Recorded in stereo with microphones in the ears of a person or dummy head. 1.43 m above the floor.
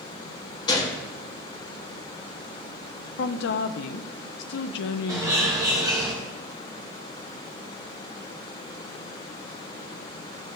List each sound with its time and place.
0.7 s a gunshot: 25° left (ahead or behind), 1.3 m
3.2 s a woman speaking: 65° left (ahead or behind), 0.6 m
5.1 s a bird: 15° right (ahead or behind), 1.2 m